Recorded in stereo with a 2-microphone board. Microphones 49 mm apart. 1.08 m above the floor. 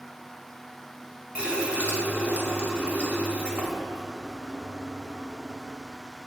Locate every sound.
1.4 s a running tap: 25° right (ahead or behind), 1.8 m